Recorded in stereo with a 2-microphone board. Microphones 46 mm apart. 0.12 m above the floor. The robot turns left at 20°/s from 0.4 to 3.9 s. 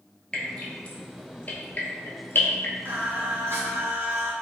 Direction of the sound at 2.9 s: 50° right (ahead or behind).